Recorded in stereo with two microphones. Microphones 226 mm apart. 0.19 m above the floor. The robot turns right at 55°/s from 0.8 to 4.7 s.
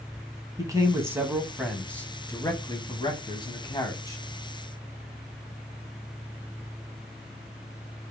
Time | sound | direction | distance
0.6 | a man speaking | 15° right (ahead or behind) | 1.0 m